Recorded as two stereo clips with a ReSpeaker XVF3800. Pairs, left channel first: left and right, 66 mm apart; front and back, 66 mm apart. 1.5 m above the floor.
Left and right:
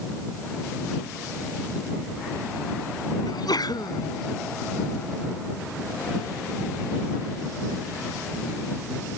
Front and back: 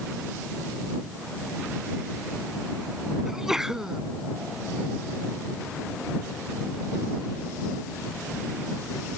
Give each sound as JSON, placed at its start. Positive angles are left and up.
{"t": 3.2, "sound": "a sneeze", "azimuth_deg": 95}